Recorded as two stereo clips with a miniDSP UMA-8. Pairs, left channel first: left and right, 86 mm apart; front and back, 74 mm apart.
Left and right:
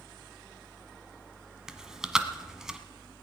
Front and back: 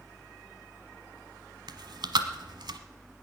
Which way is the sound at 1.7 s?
175° right.